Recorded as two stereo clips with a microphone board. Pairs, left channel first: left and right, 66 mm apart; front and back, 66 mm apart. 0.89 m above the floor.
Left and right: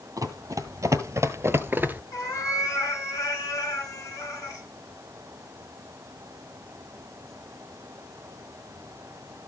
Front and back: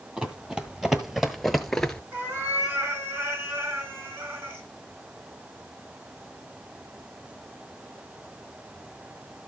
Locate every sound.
0.2 s running footsteps: 105° right, 1.7 m; by 2.0 s 65° right, 0.9 m
2.1 s a cat meowing: 125° left, 4 m